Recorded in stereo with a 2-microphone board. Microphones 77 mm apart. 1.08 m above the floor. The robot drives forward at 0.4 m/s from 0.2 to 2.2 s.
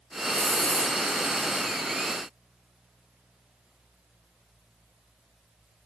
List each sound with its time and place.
0.3 s a hiss: 20° left (ahead or behind), 1.5 m